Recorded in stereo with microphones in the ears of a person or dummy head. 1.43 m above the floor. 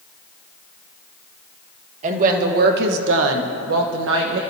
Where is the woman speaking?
40° right (ahead or behind), 1.5 m; by 4.4 s 60° right (ahead or behind), 1.3 m.